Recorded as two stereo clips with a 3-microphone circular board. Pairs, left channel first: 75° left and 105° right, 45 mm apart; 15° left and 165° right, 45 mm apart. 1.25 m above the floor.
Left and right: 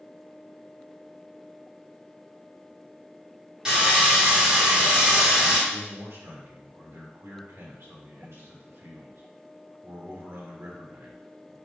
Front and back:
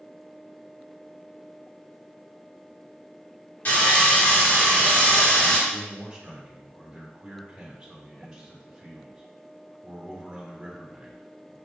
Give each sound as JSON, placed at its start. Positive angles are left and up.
{"t": 3.6, "sound": "sawing", "azimuth_deg": -30, "distance_m": 2.5}
{"t": 5.7, "sound": "a man speaking", "azimuth_deg": -95, "distance_m": 1.5}